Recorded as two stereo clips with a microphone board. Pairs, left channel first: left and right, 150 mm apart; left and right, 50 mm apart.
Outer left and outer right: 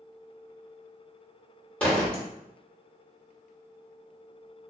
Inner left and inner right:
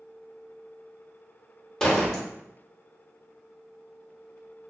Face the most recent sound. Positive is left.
turn(degrees=10)  # may be behind; listen again after turning